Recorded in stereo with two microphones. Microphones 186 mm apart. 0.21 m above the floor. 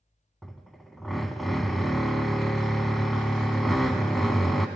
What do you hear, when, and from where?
0.4 s a drill: centre (ahead or behind), 0.9 m